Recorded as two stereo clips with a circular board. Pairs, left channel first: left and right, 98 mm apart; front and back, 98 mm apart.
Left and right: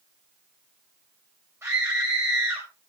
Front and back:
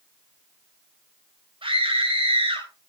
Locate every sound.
1.6 s a scream: 155° right, 7 m